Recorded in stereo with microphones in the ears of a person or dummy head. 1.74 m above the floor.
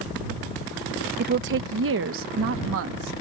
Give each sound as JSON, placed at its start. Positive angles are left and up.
{"t": 1.2, "sound": "a woman speaking", "side_deg": -50}